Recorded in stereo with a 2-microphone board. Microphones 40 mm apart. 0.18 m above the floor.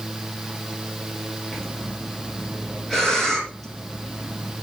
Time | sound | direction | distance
1.5 | breathing | 10° left (ahead or behind) | 3.5 m